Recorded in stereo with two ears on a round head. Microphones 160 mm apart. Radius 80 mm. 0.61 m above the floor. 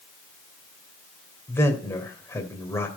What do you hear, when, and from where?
1.5 s a man speaking: 15° left (ahead or behind), 2.5 m